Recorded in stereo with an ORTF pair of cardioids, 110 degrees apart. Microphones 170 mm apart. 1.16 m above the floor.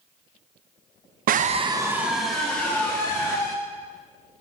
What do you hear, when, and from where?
1.3 s a scream: 60° right, 0.9 m; by 3.5 s 20° left, 3.5 m